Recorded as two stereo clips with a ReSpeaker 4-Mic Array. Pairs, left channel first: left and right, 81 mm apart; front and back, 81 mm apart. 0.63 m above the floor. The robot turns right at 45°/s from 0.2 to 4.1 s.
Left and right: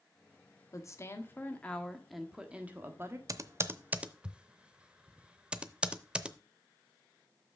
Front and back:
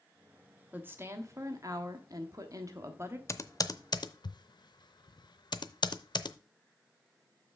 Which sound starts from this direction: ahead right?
Typing on a keyboard, at 3.3 s.